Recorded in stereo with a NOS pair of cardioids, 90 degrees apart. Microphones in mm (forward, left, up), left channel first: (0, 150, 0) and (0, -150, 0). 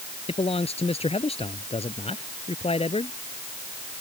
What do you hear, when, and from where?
0.3 s a man speaking: 20° left